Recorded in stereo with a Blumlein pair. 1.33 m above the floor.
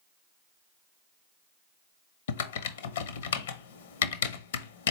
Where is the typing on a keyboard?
60° left, 0.6 m.